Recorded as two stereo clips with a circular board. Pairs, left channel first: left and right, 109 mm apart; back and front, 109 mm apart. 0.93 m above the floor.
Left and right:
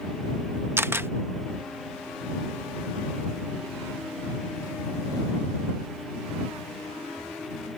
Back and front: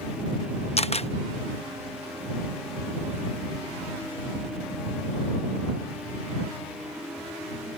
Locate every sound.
0.8 s a camera shutter: 160° right